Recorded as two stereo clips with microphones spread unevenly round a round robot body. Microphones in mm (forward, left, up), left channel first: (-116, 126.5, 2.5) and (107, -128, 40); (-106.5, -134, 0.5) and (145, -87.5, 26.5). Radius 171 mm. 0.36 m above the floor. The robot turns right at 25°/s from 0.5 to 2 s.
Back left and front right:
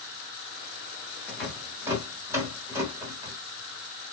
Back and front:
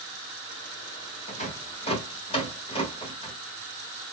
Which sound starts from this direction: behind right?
A rattle, at 1.3 s.